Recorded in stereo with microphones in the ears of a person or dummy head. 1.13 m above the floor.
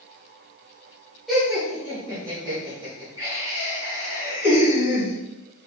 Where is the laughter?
Centre (ahead or behind), 0.8 m; by 5.1 s 30° right (ahead or behind), 3.5 m.